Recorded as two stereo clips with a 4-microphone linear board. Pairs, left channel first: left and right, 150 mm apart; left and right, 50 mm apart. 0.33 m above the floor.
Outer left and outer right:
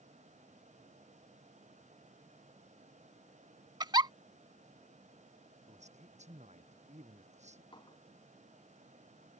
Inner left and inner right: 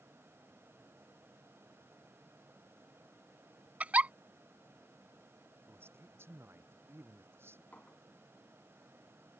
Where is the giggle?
30° right (ahead or behind).